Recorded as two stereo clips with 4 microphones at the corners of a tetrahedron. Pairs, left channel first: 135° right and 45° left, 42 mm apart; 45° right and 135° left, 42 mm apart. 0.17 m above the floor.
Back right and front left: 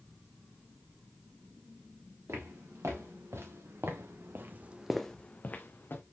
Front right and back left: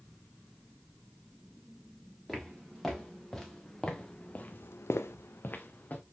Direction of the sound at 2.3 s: 45° left.